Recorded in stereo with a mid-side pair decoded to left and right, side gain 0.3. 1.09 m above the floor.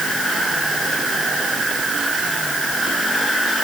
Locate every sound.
Only background noise.